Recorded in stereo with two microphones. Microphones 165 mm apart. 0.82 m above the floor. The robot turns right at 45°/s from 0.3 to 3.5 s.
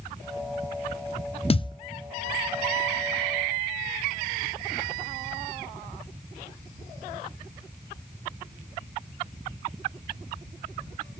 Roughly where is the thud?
Left.